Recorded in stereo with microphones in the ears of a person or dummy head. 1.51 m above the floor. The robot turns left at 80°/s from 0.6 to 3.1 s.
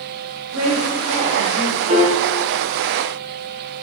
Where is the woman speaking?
95° right, 1.4 m; by 1.8 s 170° left, 1.4 m.